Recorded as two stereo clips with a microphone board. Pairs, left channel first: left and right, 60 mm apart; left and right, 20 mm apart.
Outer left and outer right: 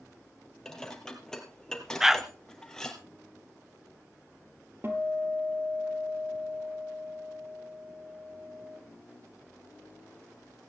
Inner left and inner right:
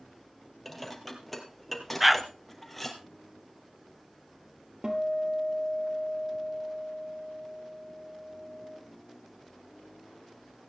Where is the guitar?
40° right (ahead or behind), 2.5 m.